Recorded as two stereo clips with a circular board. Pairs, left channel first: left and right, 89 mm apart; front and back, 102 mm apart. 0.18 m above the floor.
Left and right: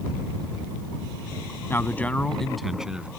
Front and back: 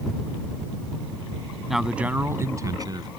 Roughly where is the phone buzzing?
I don't hear a phone buzzing.